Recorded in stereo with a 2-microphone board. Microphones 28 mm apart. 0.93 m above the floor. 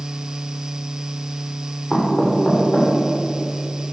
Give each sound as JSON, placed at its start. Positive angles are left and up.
{"t": 1.9, "sound": "knocking", "side_deg": 30, "distance_m": 2.5}